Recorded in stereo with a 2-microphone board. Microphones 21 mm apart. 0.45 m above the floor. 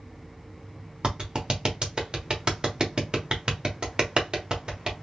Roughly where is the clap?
Right.